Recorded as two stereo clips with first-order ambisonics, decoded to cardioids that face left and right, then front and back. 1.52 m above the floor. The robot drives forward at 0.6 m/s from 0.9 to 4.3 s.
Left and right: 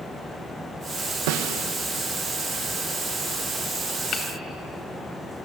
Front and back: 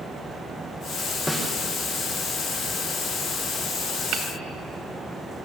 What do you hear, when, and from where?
1.3 s a snare drum: 90° right, 1.5 m; by 1.6 s 100° right, 1.5 m
4.1 s hammering: 145° left, 2 m